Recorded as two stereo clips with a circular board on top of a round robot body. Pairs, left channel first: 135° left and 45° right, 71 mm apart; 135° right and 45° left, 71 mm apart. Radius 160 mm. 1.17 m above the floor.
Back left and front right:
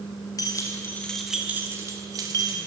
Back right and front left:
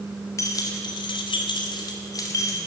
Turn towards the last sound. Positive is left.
turn(degrees=-80)